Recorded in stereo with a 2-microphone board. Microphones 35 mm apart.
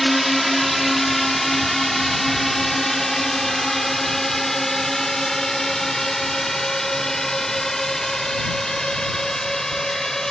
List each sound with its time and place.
0.0 s a drone: centre (ahead or behind); by 10.3 s 15° left (ahead or behind)